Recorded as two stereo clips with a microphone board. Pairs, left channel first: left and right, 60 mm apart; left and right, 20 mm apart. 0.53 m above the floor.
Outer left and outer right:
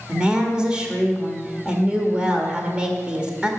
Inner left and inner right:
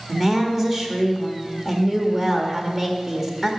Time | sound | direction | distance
0.1 | a woman speaking | 15° right (ahead or behind) | 1.5 m